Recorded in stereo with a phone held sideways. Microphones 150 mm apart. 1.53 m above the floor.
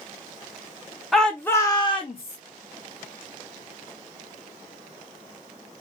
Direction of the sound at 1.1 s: Centre (ahead or behind).